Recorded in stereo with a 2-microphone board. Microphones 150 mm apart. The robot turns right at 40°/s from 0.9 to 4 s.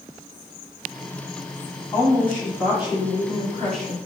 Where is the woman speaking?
155° left, 1.8 m; by 4.0 s 125° right, 1.8 m.